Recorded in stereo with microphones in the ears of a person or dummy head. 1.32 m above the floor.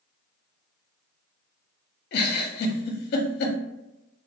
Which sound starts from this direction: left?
A giggle, at 2.1 s.